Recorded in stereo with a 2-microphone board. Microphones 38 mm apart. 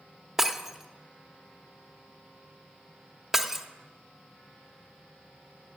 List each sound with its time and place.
0.4 s breaking glass: 10° right (ahead or behind), 0.7 m